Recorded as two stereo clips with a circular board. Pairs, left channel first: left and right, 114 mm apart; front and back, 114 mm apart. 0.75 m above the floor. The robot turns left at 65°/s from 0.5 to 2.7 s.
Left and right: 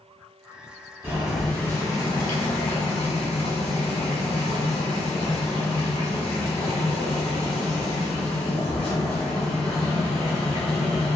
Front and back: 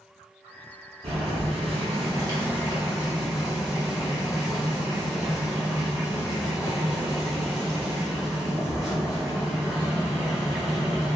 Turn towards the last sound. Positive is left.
turn(degrees=95)